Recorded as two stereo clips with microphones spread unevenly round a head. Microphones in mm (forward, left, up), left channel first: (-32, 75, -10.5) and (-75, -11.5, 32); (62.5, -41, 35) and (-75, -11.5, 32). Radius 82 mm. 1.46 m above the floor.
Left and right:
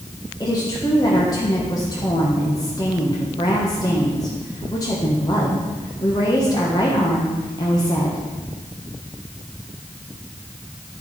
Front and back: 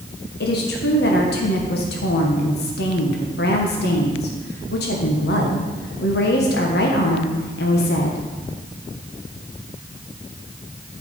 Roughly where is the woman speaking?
Ahead.